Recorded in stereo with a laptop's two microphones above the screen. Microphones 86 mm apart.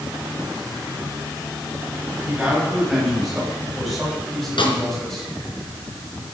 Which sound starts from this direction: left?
A snare drum, at 4.6 s.